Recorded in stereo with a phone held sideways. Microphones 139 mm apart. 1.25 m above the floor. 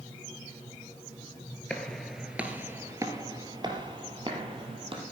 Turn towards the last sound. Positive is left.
turn(degrees=-40)  # may be behind; listen again after turning